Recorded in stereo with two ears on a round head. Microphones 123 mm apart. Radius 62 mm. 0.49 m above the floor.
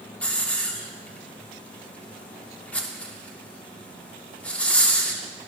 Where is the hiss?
10° left (ahead or behind), 1.0 m.